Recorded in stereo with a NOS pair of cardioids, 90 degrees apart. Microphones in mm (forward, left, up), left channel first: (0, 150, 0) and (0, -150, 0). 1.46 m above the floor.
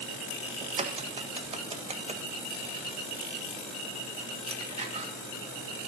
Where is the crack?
20° right, 1.4 m.